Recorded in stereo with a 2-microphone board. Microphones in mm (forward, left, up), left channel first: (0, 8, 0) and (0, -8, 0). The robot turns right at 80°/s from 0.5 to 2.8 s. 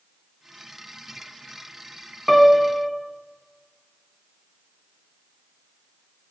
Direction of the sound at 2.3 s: 10° left.